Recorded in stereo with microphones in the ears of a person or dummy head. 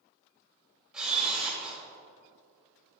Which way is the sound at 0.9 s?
10° right (ahead or behind).